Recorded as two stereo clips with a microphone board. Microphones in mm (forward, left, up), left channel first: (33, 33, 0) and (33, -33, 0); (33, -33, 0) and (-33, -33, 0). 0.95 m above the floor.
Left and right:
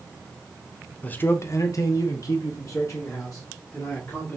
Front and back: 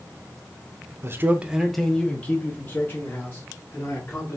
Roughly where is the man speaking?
Behind left.